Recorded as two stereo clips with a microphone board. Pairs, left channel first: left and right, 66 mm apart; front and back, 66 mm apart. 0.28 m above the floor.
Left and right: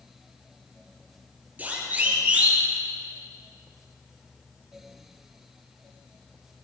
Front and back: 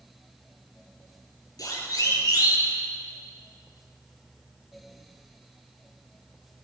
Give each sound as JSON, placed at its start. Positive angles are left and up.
{"t": 1.6, "sound": "a siren", "azimuth_deg": -25, "distance_m": 7.0}